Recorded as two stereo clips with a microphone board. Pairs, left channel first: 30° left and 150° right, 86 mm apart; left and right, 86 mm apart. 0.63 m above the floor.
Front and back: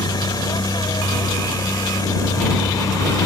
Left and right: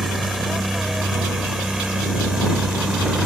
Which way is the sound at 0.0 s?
Straight ahead.